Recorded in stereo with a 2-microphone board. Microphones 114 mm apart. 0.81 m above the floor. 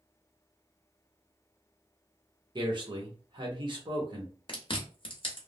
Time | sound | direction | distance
2.5 | a man speaking | 45° right (ahead or behind) | 1.1 m
4.5 | chewing | 50° left (ahead or behind) | 1.0 m